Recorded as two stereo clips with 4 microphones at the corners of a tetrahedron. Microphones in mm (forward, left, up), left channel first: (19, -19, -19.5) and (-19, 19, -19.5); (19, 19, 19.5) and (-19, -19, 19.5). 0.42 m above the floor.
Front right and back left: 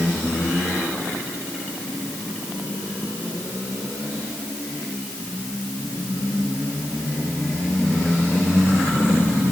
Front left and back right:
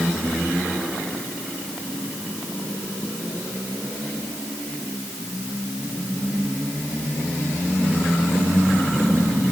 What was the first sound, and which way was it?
Only background noise.